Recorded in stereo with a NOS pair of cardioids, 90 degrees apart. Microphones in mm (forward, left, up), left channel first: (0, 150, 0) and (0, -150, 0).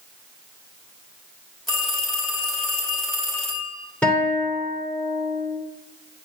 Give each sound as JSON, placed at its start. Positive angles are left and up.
{"t": 1.7, "sound": "a phone ringing", "azimuth_deg": 0, "distance_m": 3.0}
{"t": 4.0, "sound": "a guitar", "azimuth_deg": 5, "distance_m": 2.5}